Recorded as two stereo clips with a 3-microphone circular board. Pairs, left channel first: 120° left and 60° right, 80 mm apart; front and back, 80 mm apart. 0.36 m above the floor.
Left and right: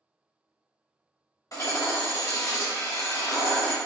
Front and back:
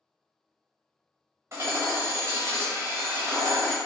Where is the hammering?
140° left, 1.2 m.